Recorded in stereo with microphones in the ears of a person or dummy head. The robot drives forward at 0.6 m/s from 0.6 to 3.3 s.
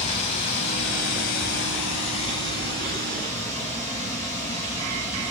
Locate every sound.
0.0 s running water: 35° left (ahead or behind), 0.7 m; by 5.3 s 20° left (ahead or behind), 1.4 m